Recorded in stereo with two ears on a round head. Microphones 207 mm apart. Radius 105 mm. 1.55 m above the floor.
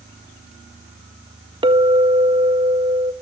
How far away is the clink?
About 1.5 m.